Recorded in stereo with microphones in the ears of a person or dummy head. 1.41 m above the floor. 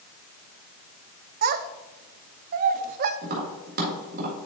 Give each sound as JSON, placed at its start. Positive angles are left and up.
{"t": 1.4, "sound": "a child speaking", "side_deg": -45, "distance_m": 0.5}
{"t": 3.2, "sound": "tapping", "side_deg": -45, "distance_m": 1.8}